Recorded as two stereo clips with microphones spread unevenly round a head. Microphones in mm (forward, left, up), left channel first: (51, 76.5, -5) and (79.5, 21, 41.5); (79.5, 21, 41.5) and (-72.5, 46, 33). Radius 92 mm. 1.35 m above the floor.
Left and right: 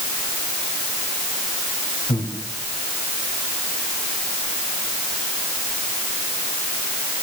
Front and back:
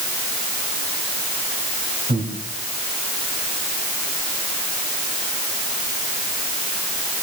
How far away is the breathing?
About 3.5 m.